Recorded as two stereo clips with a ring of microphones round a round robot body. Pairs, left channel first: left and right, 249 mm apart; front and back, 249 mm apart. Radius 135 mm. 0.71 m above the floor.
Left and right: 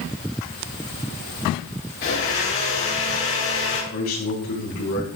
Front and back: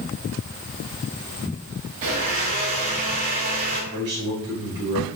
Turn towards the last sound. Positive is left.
turn(degrees=125)